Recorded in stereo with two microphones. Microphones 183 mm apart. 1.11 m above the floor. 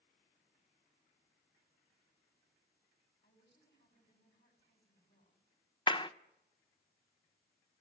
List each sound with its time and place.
3.2 s a woman speaking: 70° left (ahead or behind), 7.5 m
5.9 s a clap: 25° left (ahead or behind), 0.6 m